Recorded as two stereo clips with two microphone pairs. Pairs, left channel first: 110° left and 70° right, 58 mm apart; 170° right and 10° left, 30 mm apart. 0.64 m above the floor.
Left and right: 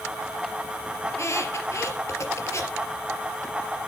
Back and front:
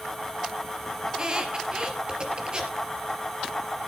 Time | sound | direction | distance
1.1 | a squeak | 70° left | 3.5 m